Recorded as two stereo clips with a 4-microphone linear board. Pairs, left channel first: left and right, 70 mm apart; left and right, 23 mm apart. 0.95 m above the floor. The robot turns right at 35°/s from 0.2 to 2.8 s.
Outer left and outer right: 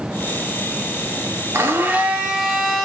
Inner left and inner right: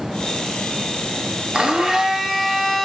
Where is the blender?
40° right, 2.5 m; by 2.9 s 5° left, 2.5 m.